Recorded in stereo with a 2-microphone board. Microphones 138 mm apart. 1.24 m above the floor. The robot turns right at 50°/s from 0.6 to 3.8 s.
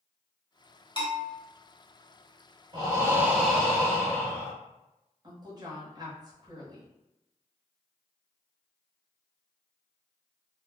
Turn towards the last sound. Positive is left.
turn(degrees=-30)  # may be behind; listen again after turning